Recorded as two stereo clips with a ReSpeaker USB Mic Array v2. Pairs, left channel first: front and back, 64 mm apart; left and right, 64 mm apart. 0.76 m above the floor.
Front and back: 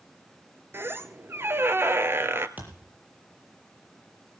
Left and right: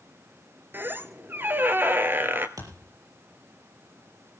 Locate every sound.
0.7 s a squeak: 140° right, 1.1 m
2.6 s a thud: 120° right, 7 m